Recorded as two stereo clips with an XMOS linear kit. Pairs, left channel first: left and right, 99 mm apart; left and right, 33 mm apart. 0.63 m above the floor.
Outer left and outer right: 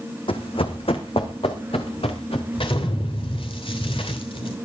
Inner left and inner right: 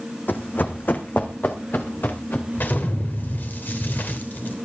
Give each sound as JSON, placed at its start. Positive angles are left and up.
{"t": 0.3, "sound": "running footsteps", "side_deg": 65, "distance_m": 1.7}
{"t": 2.5, "sound": "an explosion", "side_deg": 65, "distance_m": 3.0}